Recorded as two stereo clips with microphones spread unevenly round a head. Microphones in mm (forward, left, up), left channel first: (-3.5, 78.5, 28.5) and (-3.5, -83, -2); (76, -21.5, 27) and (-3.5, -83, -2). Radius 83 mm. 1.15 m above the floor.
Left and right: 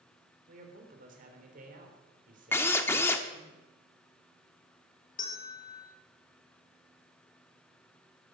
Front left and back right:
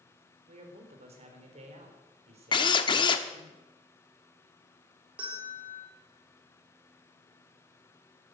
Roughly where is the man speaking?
Behind right.